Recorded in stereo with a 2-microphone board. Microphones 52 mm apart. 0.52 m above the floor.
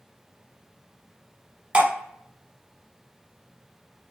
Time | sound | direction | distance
1.7 | dripping | 25° right (ahead or behind) | 1.0 m